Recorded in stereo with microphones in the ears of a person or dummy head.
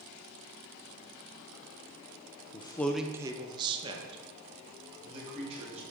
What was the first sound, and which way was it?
A man speaking, 25° left (ahead or behind).